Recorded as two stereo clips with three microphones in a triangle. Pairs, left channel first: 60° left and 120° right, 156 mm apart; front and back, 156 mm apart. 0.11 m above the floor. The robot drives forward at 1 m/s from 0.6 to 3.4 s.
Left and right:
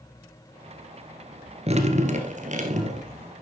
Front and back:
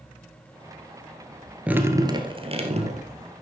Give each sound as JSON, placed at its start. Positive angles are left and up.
{"t": 1.7, "sound": "dripping", "azimuth_deg": -100, "distance_m": 1.3}